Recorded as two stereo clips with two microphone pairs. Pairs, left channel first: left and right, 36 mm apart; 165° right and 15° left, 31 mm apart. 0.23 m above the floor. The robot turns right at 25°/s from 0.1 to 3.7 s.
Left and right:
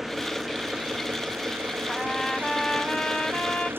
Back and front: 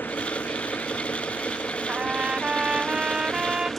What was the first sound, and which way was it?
An engine running, 170° right.